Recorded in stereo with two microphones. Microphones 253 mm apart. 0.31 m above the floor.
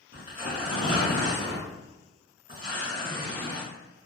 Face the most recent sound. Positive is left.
turn(degrees=35)  # may be behind; listen again after turning